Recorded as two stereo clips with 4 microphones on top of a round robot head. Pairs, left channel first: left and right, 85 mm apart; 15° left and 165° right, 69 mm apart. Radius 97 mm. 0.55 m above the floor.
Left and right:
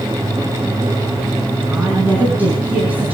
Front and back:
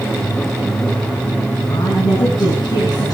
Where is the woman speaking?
20° right, 6.5 m.